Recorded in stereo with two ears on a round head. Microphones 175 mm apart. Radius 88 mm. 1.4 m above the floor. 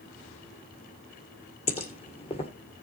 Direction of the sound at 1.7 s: 30° left (ahead or behind).